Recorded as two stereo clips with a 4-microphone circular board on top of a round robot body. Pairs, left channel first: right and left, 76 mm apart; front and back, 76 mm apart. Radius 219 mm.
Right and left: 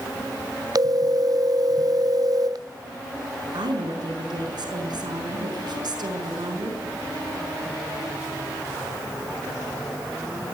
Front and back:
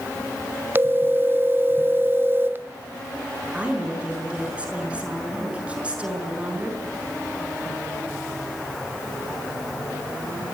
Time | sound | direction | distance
0.8 | a phone ringing | 120° left | 1.4 m
3.5 | a woman speaking | 105° left | 6.5 m